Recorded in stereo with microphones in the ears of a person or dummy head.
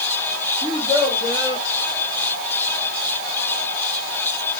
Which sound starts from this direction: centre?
A child speaking, at 0.6 s.